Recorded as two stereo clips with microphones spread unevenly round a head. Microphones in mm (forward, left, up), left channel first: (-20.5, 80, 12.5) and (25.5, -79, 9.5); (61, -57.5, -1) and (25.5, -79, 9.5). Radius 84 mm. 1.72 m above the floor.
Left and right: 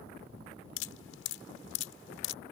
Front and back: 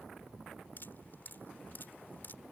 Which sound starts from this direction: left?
Dripping, at 0.8 s.